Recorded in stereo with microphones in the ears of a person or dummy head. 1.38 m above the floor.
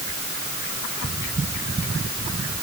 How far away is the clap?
I don't hear a clap.